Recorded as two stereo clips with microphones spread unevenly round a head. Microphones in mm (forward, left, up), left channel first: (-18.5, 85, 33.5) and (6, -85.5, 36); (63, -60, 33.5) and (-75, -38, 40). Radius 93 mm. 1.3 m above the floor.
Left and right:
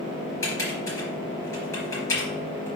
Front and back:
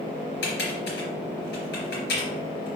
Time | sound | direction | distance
0.4 | typing on a keyboard | 20° left | 3.5 m